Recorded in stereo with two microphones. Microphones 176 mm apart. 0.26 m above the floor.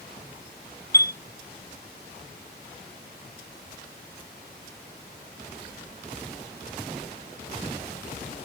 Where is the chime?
20° left (ahead or behind), 0.8 m.